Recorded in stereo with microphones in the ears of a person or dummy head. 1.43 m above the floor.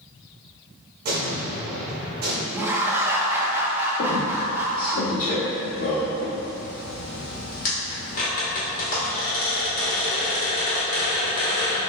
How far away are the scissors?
I don't hear scissors.